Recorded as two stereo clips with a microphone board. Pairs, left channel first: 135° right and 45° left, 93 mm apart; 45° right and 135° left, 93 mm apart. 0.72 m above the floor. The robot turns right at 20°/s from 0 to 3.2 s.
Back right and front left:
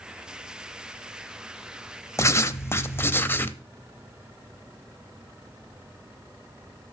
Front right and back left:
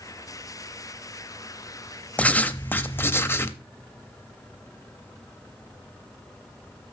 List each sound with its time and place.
2.2 s writing: 105° right, 0.5 m; by 3.6 s 85° right, 0.5 m